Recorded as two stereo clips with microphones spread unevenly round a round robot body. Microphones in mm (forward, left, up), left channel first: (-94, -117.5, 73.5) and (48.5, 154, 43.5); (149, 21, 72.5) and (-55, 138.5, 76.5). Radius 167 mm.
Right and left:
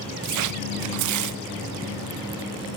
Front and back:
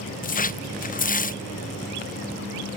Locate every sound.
0.2 s tearing paper: 30° left, 0.6 m